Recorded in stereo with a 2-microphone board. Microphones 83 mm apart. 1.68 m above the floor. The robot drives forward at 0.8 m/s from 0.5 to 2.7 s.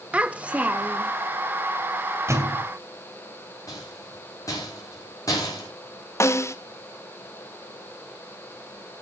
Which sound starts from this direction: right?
A thud, at 2.3 s.